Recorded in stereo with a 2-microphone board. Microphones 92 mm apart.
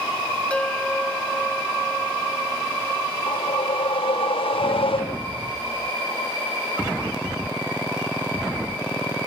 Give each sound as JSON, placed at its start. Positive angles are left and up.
{"t": 0.5, "sound": "a bell", "side_deg": 10}
{"t": 3.3, "sound": "a whoosh", "side_deg": 70}